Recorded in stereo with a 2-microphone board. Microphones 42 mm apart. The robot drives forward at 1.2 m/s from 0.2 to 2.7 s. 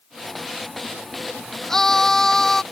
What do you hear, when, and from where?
1.7 s a scream: 10° left (ahead or behind)